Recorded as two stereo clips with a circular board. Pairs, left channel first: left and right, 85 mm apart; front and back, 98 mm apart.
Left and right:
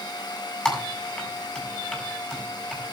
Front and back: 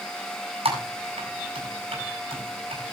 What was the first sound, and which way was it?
Typing on a keyboard, 175° left.